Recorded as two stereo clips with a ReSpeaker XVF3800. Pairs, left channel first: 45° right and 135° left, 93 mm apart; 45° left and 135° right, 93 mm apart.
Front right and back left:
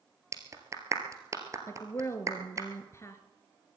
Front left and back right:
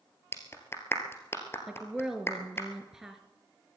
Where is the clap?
95° left, 1.7 m.